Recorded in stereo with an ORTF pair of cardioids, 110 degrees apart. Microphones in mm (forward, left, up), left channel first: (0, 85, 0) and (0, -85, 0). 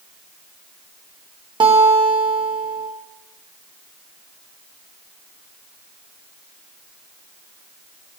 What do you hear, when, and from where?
1.6 s a guitar: 25° right, 3 m